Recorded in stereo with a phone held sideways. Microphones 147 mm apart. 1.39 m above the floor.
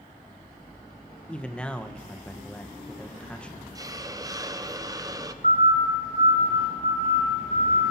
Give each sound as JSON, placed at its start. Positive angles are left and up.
{"t": 1.3, "sound": "a man speaking", "side_deg": 5, "distance_m": 1.1}
{"t": 3.8, "sound": "a hiss", "side_deg": -25, "distance_m": 0.8}
{"t": 5.4, "sound": "a siren", "side_deg": -55, "distance_m": 7.5}